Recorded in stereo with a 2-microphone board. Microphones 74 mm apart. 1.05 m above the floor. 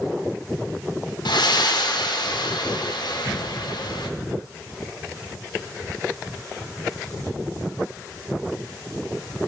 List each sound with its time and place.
1.2 s breathing: 80° left, 0.6 m